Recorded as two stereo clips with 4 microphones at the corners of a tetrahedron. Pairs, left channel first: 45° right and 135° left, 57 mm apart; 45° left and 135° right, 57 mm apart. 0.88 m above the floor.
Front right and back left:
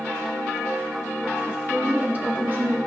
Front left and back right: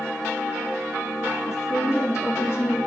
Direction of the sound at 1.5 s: 60° left.